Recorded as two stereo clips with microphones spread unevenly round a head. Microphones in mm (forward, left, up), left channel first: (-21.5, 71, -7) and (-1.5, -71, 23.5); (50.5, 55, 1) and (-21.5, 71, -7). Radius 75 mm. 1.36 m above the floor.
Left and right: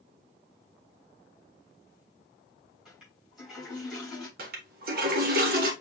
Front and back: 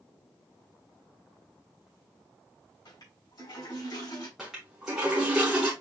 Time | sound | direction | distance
2.9 | a toilet flushing | straight ahead | 3.5 m
4.4 | a toilet flushing | 105° right | 1.2 m